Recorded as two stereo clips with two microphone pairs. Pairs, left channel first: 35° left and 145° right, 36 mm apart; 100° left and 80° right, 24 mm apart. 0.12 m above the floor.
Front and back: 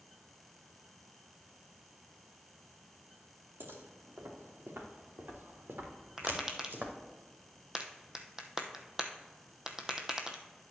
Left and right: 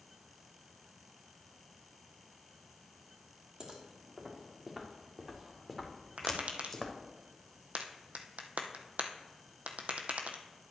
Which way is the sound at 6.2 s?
75° right.